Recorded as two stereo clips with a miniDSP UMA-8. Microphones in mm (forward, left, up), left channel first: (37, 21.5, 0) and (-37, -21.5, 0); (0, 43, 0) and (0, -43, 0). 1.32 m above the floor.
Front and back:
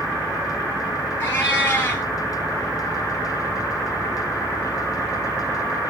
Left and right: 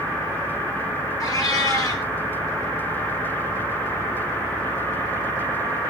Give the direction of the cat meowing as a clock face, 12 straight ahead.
9 o'clock.